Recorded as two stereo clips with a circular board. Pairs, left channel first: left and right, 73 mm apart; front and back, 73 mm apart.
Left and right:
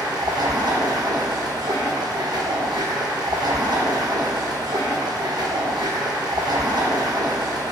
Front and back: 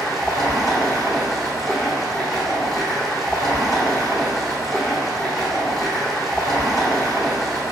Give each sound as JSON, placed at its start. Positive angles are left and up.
{"t": 0.0, "sound": "running water", "azimuth_deg": -90, "distance_m": 1.0}